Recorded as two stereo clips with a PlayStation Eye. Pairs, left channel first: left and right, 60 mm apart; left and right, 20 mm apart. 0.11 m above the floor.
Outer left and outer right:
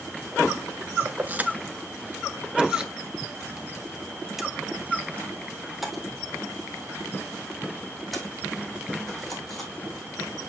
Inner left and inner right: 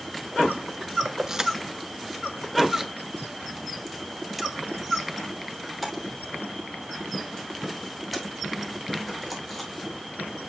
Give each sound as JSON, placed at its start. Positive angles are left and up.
{"t": 1.1, "sound": "keys jangling", "side_deg": -25, "distance_m": 0.9}